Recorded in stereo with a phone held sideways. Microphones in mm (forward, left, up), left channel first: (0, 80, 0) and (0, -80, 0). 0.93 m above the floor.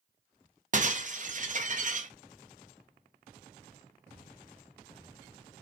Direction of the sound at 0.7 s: 50° right (ahead or behind).